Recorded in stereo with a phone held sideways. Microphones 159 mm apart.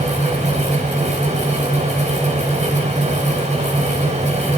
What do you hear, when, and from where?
0.0 s a fan: 50° right (ahead or behind), 4 m